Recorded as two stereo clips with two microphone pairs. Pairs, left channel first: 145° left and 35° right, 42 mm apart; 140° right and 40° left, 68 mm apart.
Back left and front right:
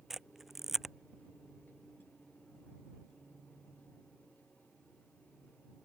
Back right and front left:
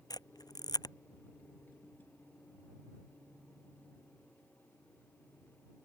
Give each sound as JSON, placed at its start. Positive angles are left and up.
{"t": 0.1, "sound": "a camera shutter", "azimuth_deg": -120}